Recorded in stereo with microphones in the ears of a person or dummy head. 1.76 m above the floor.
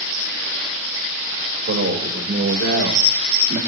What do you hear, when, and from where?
1.7 s a man speaking: 60° right (ahead or behind), 3.5 m; by 3.6 s 40° right (ahead or behind), 2.5 m